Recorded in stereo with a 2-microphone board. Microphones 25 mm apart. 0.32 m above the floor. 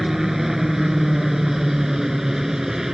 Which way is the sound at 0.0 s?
20° right (ahead or behind).